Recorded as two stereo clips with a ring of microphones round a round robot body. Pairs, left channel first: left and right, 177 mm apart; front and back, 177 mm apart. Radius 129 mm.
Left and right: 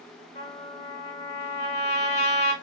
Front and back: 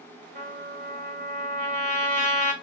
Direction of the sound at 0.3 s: 150° left.